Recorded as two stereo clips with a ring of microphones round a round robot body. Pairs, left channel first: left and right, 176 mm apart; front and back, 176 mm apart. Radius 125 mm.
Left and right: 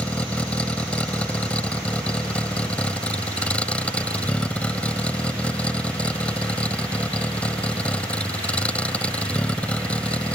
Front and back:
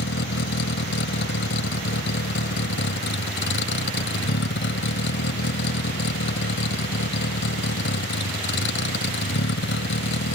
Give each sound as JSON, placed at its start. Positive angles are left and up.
{"t": 0.0, "sound": "a vehicle", "azimuth_deg": 5}